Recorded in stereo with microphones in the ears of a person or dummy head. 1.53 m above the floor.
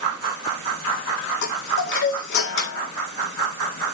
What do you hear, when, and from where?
1.4 s a chime: 60° left (ahead or behind), 1.9 m